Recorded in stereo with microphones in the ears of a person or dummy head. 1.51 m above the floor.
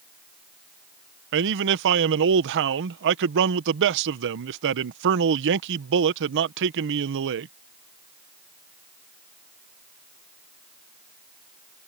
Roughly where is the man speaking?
Right.